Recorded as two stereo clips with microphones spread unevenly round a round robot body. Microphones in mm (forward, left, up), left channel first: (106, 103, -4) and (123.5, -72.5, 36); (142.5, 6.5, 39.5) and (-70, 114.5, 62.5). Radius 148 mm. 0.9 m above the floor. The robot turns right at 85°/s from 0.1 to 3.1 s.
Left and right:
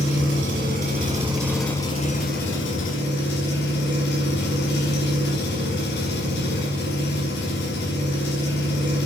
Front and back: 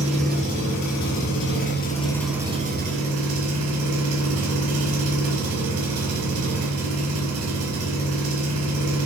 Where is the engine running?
120° right, 7 m; by 9.1 s 135° left, 7 m.